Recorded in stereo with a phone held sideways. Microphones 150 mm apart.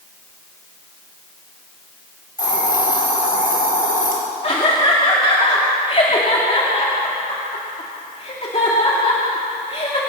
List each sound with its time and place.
2.4 s a hiss: 70° left (ahead or behind), 5.5 m
4.4 s laughter: 45° left (ahead or behind), 2.5 m